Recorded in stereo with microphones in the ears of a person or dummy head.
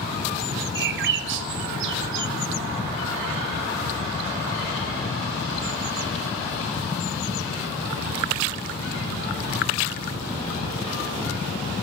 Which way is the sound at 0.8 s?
55° right (ahead or behind).